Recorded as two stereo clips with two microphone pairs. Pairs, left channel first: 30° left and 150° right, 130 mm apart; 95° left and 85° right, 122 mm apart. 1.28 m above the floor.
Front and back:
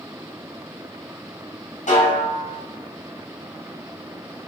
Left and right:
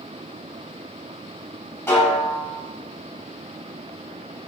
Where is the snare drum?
25° left, 4.5 m.